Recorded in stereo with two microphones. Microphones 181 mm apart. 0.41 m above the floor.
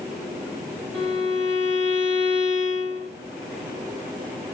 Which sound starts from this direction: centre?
A violin, at 0.9 s.